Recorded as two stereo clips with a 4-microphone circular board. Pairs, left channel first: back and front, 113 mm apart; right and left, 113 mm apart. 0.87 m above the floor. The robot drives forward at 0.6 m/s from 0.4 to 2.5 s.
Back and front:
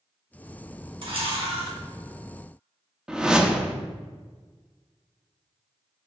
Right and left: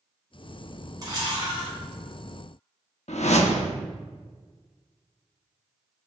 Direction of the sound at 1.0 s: 35° left.